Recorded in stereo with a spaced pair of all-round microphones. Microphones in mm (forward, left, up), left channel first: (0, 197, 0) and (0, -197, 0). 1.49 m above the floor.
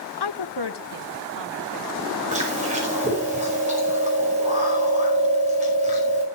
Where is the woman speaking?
75° left (ahead or behind), 0.5 m; by 3.3 s 80° left, 4.5 m.